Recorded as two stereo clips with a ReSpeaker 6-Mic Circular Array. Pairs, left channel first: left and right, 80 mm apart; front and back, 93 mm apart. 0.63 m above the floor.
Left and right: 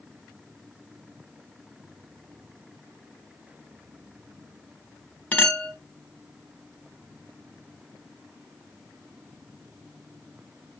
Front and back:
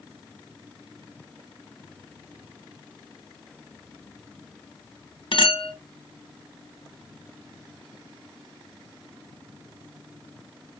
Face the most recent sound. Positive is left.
turn(degrees=20)